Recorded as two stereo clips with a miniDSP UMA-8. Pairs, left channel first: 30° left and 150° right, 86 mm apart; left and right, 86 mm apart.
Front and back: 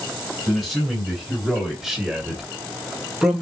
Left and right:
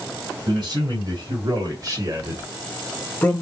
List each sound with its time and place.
0.5 s a man speaking: 65° right, 3.5 m; by 3.4 s 125° left, 1.3 m